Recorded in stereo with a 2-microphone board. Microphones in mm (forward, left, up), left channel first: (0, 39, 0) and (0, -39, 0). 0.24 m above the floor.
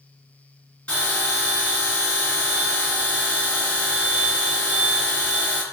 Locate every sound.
0.9 s a bell: 10° left (ahead or behind), 1.6 m